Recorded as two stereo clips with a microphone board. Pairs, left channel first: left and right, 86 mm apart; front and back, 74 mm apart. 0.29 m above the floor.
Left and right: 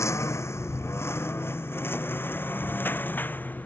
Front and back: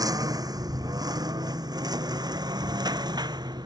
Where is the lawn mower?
145° left; by 3.7 s 160° left.